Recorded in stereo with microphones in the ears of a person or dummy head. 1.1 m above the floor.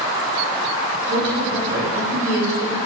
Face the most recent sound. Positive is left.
turn(degrees=-55)  # may be behind; listen again after turning